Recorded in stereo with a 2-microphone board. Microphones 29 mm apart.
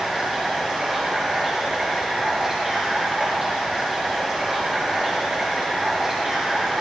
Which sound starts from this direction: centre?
Running water, at 0.0 s.